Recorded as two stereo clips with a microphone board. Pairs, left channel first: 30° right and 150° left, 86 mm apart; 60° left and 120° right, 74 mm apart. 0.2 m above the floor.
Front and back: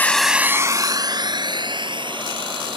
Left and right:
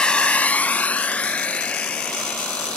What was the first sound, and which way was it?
A drone, straight ahead.